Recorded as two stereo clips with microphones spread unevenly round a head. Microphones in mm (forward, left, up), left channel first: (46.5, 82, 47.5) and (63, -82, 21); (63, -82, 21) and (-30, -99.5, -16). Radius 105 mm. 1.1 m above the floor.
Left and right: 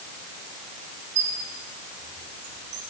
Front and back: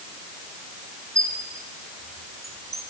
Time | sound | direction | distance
1.1 | a squeak | 110° right | 5 m